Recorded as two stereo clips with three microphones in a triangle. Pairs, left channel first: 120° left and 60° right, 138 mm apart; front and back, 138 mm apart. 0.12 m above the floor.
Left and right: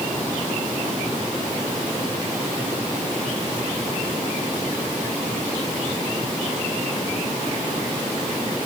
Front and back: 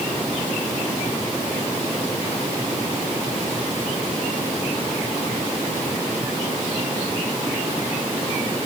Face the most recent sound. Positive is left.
No sound to turn to.